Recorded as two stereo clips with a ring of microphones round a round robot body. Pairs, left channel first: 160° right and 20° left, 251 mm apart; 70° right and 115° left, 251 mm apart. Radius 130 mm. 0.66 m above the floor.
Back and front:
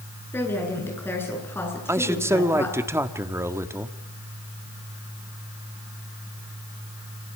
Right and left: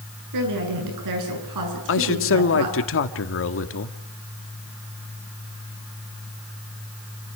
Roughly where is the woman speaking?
Behind left.